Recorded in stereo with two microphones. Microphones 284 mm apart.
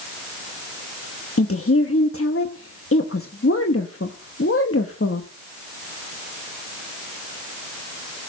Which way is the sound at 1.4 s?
50° left (ahead or behind).